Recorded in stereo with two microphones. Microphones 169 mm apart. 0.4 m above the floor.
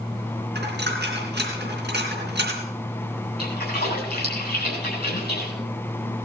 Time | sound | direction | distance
0.6 | a dropped coin | 85° right | 3.5 m
3.4 | a splash | 75° left (ahead or behind) | 5 m